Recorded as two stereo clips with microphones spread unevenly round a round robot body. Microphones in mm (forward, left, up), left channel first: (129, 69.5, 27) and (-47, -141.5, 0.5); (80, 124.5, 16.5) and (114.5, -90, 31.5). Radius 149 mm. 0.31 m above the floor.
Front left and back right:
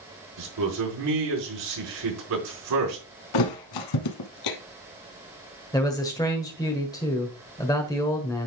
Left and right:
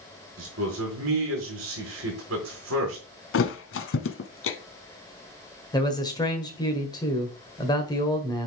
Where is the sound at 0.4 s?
120° right, 4 m.